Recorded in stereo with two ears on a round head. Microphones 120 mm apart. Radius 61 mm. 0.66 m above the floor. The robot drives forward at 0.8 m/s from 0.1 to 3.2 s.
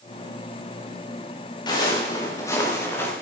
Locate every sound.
1.7 s footsteps: 35° left (ahead or behind), 5 m; by 3.1 s 20° left (ahead or behind), 5.5 m